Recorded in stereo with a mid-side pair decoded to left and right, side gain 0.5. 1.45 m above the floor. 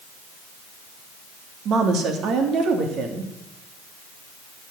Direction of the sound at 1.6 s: 65° right.